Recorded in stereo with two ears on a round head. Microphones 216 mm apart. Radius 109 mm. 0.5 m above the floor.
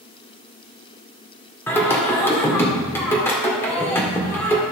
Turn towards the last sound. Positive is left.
turn(degrees=10)  # may be behind; listen again after turning